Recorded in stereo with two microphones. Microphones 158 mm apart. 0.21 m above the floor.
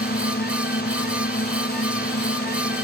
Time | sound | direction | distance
0.0 | a drone | 85° left | ?